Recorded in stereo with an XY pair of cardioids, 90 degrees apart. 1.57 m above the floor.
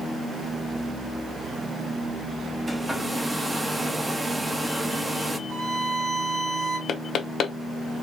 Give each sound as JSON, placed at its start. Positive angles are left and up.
{"t": 2.7, "sound": "a hair dryer", "azimuth_deg": -20, "distance_m": 1.0}
{"t": 5.5, "sound": "a violin", "azimuth_deg": -65, "distance_m": 2.5}
{"t": 6.9, "sound": "knocking", "azimuth_deg": 70, "distance_m": 0.7}